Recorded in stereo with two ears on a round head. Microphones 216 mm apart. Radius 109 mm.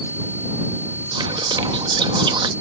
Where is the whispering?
20° right (ahead or behind).